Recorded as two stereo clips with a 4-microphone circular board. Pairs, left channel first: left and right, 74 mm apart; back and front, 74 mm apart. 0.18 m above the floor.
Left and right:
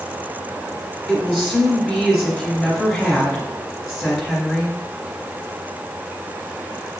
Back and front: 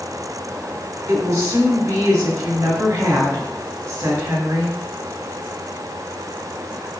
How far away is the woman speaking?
About 1.5 m.